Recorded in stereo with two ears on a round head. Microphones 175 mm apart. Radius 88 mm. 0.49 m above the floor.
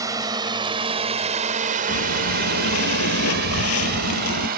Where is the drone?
15° right (ahead or behind); by 4.6 s 45° right (ahead or behind).